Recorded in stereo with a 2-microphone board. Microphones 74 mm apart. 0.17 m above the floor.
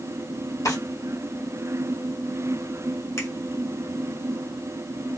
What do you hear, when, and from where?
0.7 s a drawer: 50° left (ahead or behind), 2 m
3.2 s a finger snap: 45° left (ahead or behind), 1.3 m